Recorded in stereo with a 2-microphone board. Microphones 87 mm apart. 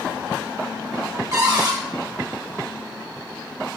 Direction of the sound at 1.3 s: 40° right (ahead or behind).